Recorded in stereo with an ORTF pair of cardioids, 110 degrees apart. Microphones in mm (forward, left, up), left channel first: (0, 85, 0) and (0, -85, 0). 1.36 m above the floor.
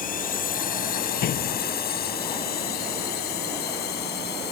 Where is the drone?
55° left; by 4.5 s 70° left.